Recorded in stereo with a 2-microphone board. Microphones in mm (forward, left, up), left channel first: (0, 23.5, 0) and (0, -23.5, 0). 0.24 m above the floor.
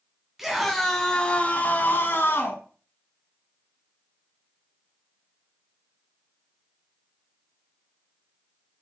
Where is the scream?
10° right (ahead or behind), 2.5 m; by 2.6 s 60° left (ahead or behind), 2.5 m.